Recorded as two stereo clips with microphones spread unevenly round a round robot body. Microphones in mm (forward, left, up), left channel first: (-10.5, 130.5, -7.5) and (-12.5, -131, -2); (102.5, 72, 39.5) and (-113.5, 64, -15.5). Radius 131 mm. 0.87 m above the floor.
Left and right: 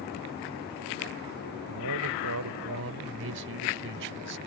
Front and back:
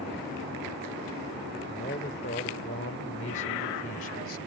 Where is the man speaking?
60° right; by 4.4 s 40° right.